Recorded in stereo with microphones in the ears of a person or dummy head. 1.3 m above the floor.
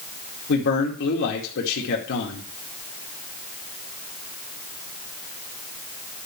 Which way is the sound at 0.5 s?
60° left (ahead or behind).